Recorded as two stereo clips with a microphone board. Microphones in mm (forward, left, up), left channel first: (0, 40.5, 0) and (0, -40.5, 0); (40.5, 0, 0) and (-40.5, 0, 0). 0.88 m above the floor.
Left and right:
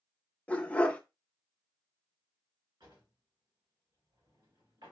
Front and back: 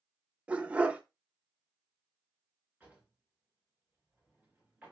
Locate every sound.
0.5 s a dog barking: 135° left, 0.5 m
2.8 s a drawer: 105° right, 2.5 m